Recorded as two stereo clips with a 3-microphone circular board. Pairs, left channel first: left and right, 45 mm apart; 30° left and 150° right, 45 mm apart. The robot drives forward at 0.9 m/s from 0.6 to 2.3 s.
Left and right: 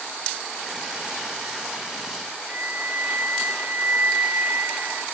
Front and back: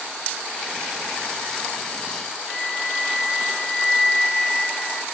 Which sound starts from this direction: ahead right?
A flute, at 2.5 s.